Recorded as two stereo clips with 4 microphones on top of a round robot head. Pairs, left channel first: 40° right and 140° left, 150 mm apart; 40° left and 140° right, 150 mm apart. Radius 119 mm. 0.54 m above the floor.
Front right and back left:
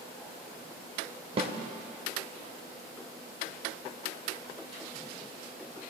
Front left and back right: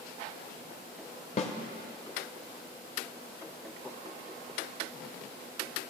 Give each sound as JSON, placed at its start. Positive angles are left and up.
{"t": 1.4, "sound": "a snare drum", "azimuth_deg": 90, "distance_m": 0.6}